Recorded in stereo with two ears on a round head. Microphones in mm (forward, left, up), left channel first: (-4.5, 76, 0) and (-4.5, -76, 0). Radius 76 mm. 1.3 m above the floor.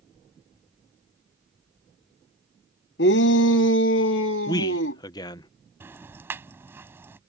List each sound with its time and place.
3.0 s a shout: 65° left (ahead or behind); by 5.0 s 85° left
4.5 s a man speaking: 20° left (ahead or behind)
5.8 s ticking: 15° right (ahead or behind)